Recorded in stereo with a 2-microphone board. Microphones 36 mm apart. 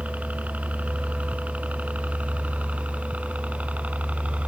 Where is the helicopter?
45° right (ahead or behind); by 4.5 s 40° right (ahead or behind).